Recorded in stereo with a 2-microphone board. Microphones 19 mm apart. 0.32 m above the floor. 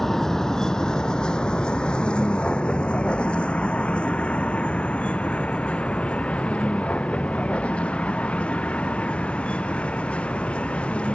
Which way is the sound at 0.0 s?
20° left (ahead or behind).